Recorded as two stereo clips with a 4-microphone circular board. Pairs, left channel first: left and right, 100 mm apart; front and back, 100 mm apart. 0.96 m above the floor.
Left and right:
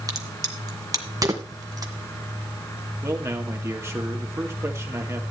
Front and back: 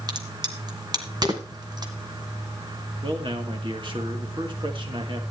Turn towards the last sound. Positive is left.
turn(degrees=-150)